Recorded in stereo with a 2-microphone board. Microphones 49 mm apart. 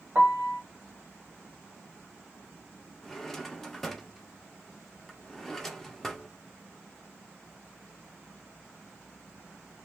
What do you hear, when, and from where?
0.1 s a piano: 40° right (ahead or behind), 0.9 m
3.0 s a drawer: 5° left (ahead or behind), 0.6 m